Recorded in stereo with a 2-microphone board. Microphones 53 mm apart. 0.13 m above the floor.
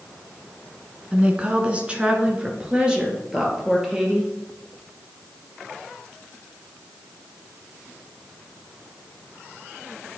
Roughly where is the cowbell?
I don't hear a cowbell.